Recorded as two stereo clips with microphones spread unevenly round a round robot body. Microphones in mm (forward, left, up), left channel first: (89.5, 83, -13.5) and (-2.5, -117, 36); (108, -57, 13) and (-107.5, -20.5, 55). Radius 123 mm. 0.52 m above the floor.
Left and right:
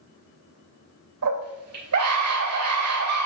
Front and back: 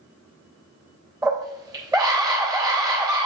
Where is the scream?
110° right, 3 m.